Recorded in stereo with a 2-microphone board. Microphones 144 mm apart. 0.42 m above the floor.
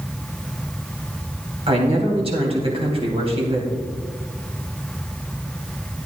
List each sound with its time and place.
1.7 s a man speaking: 45° right (ahead or behind), 2.5 m